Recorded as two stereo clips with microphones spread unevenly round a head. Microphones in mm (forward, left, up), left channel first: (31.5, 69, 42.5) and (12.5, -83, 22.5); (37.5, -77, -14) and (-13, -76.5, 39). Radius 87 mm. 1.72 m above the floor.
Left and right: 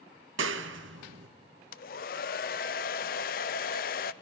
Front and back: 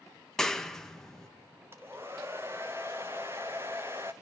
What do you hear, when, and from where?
0.4 s a clap: 110° right, 1.5 m
1.7 s a hair dryer: 120° left, 0.7 m